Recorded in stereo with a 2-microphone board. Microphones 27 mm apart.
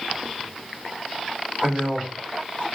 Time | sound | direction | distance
1.6 | a man speaking | 55° right (ahead or behind) | 1.4 m